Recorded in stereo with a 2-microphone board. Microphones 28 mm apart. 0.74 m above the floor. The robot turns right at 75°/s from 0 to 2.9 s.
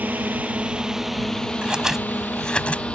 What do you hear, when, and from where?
0.0 s a drone: 80° right; by 3.0 s 40° left (ahead or behind)
1.6 s scissors: 40° right (ahead or behind); by 2.8 s 50° left (ahead or behind)